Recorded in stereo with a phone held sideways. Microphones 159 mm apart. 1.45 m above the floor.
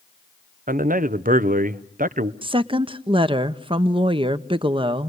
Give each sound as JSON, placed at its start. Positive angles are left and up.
{"t": 0.7, "sound": "a man speaking", "side_deg": -70, "distance_m": 0.8}
{"t": 2.4, "sound": "a woman speaking", "side_deg": -35, "distance_m": 0.8}